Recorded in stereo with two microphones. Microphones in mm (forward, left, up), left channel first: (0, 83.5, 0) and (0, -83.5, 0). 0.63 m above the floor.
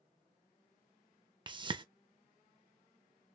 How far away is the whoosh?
About 0.5 m.